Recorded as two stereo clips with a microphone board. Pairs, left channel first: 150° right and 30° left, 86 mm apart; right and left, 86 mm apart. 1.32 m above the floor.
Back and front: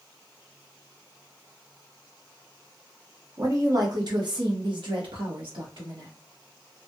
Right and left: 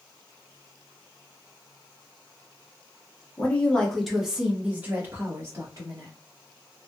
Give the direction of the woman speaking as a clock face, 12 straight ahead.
1 o'clock.